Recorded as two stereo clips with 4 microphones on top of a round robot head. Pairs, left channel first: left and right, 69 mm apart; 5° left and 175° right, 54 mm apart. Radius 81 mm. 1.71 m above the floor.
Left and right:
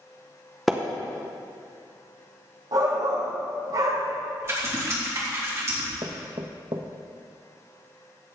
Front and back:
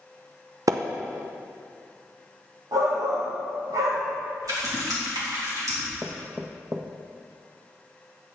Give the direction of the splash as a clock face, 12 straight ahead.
6 o'clock.